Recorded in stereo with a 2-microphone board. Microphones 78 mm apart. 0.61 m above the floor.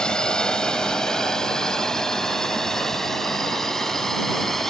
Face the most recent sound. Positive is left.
turn(degrees=5)  # may be behind; listen again after turning